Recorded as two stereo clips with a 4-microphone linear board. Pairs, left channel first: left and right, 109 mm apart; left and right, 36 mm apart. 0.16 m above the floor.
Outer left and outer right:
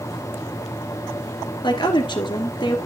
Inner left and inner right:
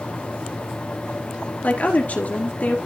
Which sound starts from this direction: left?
A woman speaking, at 1.6 s.